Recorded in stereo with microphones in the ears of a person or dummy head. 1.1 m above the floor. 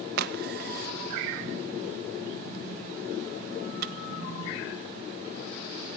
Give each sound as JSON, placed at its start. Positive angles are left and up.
{"t": 0.2, "sound": "a crack", "side_deg": -50, "distance_m": 0.8}